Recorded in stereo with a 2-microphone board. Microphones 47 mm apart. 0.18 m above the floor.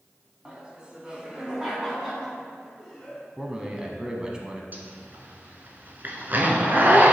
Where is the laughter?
25° right (ahead or behind), 1.5 m; by 3.3 s centre (ahead or behind), 2.5 m.